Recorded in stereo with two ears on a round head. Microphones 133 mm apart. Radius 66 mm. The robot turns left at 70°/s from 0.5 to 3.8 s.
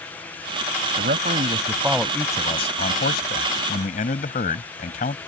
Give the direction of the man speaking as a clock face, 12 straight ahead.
4 o'clock.